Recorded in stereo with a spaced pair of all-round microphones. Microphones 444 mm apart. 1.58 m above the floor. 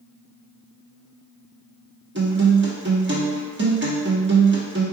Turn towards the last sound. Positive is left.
turn(degrees=-25)  # may be behind; listen again after turning